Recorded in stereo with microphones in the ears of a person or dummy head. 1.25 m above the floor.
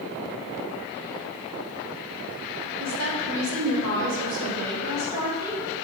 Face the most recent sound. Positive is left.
turn(degrees=-20)  # may be behind; listen again after turning